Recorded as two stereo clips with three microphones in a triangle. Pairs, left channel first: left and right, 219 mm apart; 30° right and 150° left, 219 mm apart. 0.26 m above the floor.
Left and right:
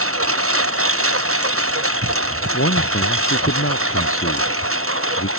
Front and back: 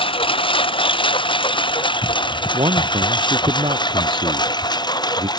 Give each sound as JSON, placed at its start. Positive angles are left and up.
{"t": 0.0, "sound": "a lawn mower", "azimuth_deg": -95}
{"t": 2.5, "sound": "a man speaking", "azimuth_deg": 85}